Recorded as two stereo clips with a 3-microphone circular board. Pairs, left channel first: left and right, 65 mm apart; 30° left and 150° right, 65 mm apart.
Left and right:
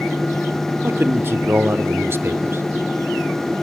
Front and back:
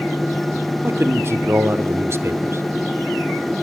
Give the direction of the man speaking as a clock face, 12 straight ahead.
4 o'clock.